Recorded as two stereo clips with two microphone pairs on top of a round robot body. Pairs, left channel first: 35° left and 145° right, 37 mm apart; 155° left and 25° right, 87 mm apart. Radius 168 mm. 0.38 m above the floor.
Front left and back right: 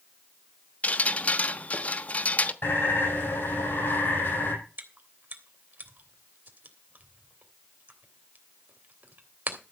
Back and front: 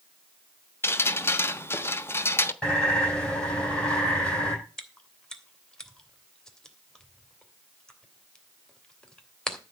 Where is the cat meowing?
No cat meowing in this recording.